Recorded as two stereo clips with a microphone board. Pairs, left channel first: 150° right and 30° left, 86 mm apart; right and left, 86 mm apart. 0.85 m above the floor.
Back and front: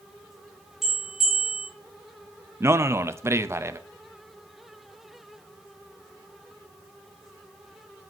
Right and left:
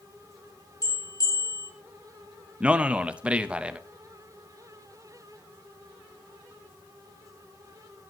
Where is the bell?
55° right, 2 m.